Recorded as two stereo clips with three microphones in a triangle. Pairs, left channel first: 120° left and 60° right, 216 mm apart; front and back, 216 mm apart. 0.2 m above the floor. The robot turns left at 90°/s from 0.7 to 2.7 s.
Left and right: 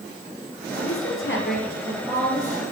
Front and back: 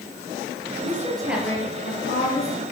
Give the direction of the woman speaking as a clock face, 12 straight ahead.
7 o'clock.